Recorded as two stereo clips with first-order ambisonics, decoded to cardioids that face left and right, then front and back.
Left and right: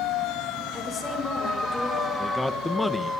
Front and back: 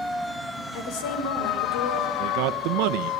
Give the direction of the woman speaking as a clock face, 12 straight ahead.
11 o'clock.